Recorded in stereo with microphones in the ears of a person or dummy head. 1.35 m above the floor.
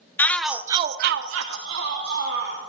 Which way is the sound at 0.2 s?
10° left (ahead or behind).